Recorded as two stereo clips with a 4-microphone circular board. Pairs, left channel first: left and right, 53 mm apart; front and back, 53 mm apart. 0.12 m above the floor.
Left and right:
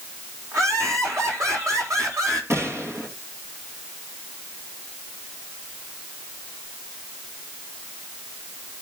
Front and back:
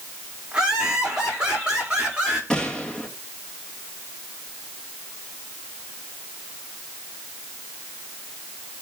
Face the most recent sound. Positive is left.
turn(degrees=-70)